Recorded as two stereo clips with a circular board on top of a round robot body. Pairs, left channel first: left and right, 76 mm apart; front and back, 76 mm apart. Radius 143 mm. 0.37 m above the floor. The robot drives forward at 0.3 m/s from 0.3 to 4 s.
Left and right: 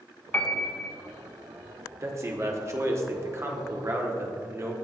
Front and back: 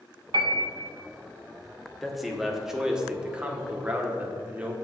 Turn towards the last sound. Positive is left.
turn(degrees=-120)